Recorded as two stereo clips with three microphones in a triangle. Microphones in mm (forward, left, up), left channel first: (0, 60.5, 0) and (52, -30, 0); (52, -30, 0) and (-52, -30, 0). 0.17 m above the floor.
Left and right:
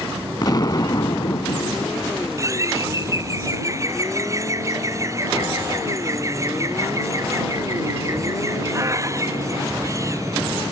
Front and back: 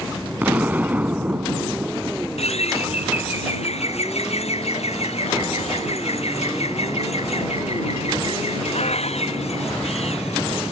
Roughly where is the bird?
Ahead.